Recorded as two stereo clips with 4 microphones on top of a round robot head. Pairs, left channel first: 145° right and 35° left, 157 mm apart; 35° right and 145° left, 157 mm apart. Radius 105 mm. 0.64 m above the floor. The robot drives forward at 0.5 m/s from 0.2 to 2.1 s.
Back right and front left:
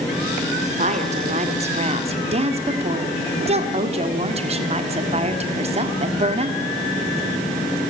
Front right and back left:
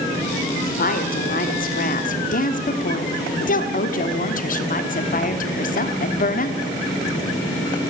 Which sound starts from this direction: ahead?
A woman speaking, at 0.6 s.